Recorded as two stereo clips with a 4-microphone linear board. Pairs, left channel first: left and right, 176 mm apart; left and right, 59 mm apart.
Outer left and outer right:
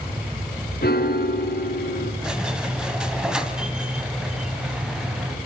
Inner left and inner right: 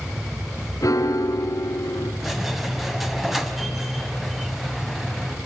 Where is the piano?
65° left (ahead or behind), 2.5 m.